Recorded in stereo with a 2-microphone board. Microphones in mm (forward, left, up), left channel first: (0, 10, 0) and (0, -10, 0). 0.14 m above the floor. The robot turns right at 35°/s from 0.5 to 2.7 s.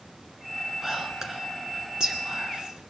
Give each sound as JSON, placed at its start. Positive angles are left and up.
{"t": 0.8, "sound": "whispering", "side_deg": -20, "distance_m": 2.0}